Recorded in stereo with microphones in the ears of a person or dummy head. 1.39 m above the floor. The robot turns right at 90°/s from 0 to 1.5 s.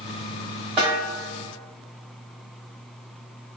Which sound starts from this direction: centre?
A snare drum, at 0.8 s.